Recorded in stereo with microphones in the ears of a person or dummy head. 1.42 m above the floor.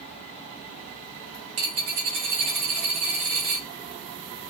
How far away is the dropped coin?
About 1.0 m.